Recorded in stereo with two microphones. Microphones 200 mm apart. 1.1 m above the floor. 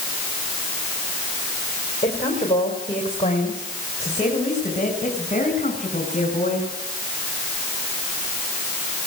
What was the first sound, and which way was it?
A woman speaking, 30° left (ahead or behind).